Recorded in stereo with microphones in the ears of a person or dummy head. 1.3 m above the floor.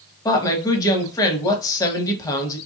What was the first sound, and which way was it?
A woman speaking, 20° left (ahead or behind).